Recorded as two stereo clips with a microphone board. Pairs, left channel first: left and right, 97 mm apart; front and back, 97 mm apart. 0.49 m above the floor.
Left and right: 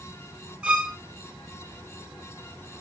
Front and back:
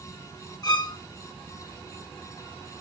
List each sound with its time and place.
0.6 s a violin: 15° right, 1.5 m